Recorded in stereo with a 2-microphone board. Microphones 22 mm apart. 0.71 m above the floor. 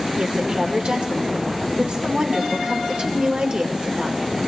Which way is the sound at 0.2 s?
55° right (ahead or behind).